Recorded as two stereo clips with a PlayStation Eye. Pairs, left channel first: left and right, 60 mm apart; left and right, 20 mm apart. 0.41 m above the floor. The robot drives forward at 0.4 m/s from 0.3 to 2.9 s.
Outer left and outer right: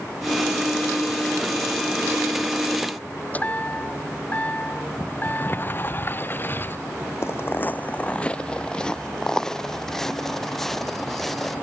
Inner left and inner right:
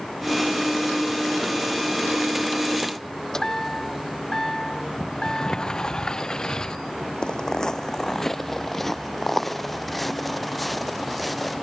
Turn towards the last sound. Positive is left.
turn(degrees=5)  # may be behind; listen again after turning